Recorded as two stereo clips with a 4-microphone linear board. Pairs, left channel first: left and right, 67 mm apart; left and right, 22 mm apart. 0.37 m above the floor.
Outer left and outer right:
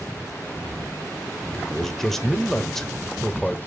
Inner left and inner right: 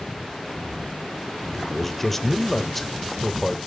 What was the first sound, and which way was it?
A man speaking, 5° left (ahead or behind).